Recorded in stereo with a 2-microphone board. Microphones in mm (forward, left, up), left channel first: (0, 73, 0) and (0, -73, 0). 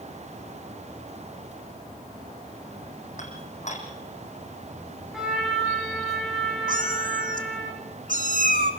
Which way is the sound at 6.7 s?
80° right.